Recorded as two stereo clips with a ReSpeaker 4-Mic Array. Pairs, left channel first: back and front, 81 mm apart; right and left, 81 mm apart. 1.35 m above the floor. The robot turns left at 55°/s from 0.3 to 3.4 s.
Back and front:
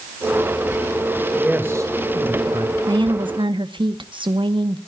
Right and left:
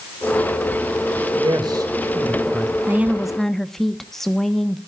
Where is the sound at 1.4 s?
80° left, 2 m; by 2.8 s straight ahead, 2 m.